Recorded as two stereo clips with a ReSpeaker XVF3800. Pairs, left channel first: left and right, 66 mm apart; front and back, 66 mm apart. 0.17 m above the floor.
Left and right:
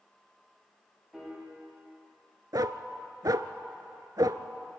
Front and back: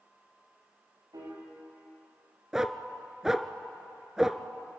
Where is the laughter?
I don't hear laughter.